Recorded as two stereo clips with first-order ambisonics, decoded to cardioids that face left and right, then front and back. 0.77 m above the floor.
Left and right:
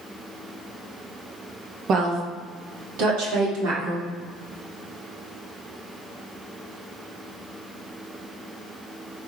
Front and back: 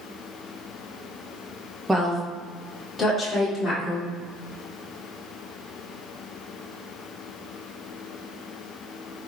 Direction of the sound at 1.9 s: 100° right.